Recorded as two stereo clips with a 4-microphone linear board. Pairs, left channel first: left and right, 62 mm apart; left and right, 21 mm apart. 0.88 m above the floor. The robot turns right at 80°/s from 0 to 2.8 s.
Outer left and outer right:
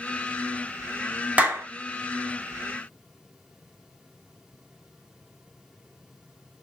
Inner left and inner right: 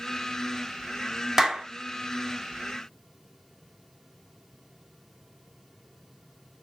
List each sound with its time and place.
1.4 s a clap: 20° right (ahead or behind), 1.3 m; by 1.7 s 45° right (ahead or behind), 1.3 m